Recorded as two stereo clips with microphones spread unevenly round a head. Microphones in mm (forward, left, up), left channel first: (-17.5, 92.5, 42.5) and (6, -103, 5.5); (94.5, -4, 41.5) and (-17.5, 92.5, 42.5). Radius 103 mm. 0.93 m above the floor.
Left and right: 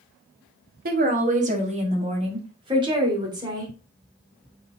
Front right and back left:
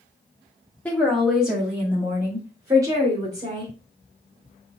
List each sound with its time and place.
0.8 s a woman speaking: 125° right, 1.3 m; by 3.7 s 155° right, 2.5 m